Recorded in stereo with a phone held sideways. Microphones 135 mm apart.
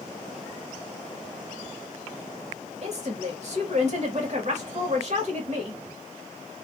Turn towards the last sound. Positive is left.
turn(degrees=-55)  # may be behind; listen again after turning